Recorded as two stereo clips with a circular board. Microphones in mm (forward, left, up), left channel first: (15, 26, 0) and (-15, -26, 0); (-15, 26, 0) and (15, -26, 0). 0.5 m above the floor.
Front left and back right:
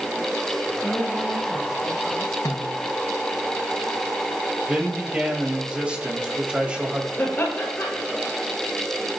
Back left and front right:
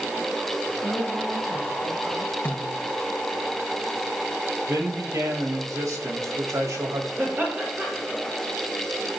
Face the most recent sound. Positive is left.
turn(degrees=0)